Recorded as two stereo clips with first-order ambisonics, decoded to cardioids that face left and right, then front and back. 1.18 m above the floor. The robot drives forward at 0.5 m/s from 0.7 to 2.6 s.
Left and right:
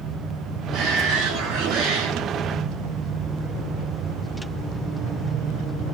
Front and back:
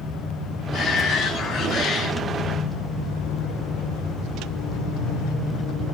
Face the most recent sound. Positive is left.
turn(degrees=-80)